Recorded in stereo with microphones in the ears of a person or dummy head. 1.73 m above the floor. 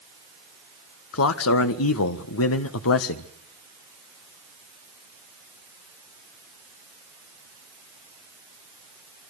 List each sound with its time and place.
1.1 s a man speaking: 75° left (ahead or behind), 1.4 m